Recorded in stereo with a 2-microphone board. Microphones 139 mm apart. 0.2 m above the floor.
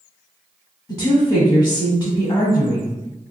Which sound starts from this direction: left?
A woman speaking, at 0.9 s.